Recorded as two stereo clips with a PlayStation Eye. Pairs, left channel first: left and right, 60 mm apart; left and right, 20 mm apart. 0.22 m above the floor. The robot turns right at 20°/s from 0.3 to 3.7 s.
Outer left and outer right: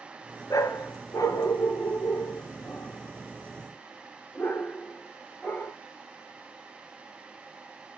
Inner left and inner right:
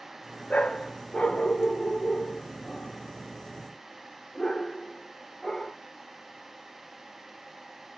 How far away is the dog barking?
About 0.8 m.